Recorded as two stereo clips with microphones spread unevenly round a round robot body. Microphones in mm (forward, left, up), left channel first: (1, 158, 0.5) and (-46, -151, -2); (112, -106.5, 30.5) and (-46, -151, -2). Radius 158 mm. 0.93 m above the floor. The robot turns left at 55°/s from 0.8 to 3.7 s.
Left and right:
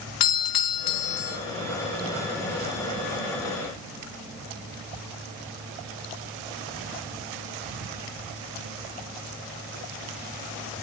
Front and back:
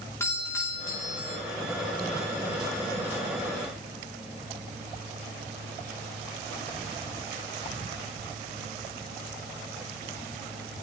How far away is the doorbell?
About 2 m.